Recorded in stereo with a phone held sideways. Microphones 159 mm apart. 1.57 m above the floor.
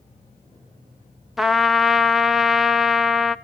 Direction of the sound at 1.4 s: Centre (ahead or behind).